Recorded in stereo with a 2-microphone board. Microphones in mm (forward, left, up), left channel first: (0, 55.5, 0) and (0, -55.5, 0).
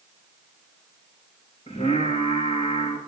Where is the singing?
60° left (ahead or behind), 6.5 m.